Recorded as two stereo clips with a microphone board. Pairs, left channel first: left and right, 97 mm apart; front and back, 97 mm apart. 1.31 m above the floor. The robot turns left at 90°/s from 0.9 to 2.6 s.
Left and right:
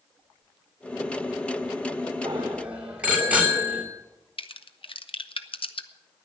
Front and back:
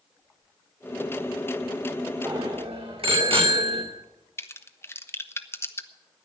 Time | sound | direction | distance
2.2 | a bicycle bell | 135° right | 2.5 m
4.4 | a crack | 65° left | 0.7 m